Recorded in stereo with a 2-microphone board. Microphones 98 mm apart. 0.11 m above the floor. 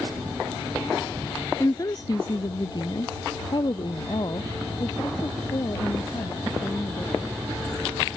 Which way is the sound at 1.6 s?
35° left (ahead or behind).